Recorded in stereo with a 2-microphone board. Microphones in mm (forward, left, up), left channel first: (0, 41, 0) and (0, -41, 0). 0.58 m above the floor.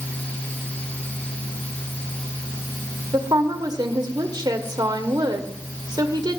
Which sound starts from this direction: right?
A woman speaking, at 3.1 s.